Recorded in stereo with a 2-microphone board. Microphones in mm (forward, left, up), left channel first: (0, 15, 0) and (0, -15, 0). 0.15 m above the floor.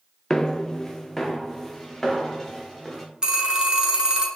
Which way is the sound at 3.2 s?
25° right (ahead or behind).